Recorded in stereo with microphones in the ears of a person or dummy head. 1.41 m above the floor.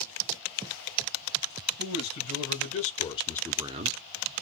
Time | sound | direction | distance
1.8 | a man speaking | 60° left (ahead or behind) | 1.9 m